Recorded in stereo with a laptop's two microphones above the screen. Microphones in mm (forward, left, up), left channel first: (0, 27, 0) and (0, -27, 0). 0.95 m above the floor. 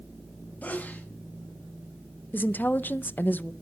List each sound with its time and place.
0.6 s a sneeze: 30° left (ahead or behind), 2.0 m
2.3 s a woman speaking: 35° left (ahead or behind), 0.5 m